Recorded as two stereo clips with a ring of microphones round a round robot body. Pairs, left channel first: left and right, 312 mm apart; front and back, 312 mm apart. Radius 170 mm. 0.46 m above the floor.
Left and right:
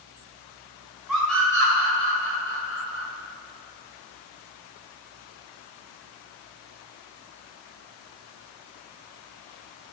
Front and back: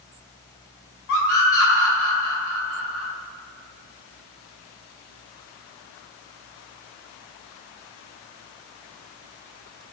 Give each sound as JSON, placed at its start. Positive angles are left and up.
{"t": 1.1, "sound": "a scream", "azimuth_deg": 0, "distance_m": 2.0}